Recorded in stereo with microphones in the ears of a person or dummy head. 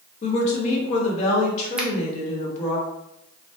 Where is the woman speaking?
45° left (ahead or behind), 1.0 m.